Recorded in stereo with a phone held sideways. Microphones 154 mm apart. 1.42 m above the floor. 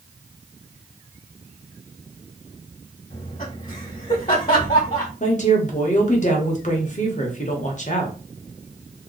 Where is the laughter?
55° left (ahead or behind), 1.1 m.